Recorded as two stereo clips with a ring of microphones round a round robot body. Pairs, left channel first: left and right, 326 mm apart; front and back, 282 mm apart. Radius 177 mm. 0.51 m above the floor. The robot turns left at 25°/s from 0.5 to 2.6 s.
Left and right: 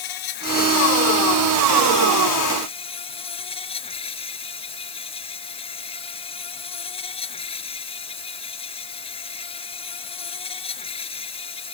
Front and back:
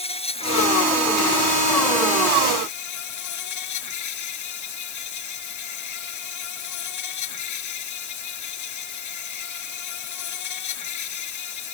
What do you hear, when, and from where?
0.0 s an insect: 70° left; by 11.7 s 15° left